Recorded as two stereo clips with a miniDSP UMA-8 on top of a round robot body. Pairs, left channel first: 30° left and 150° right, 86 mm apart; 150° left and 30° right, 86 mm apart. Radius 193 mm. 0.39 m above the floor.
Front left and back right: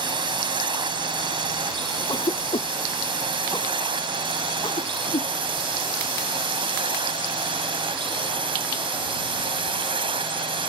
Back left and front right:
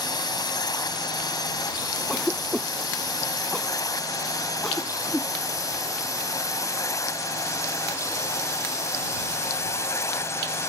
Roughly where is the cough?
Ahead left.